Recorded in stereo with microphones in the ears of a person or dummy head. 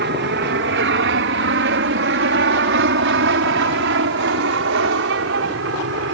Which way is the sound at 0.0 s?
55° right (ahead or behind).